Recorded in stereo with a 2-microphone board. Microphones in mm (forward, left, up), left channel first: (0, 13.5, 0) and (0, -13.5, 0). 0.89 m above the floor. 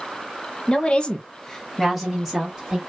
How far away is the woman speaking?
About 0.7 m.